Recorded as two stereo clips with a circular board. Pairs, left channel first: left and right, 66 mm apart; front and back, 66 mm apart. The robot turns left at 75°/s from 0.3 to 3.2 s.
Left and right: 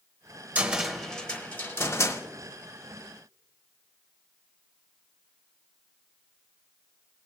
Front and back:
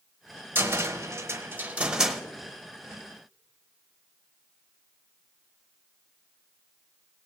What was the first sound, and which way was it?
A cupboard door, 145° right.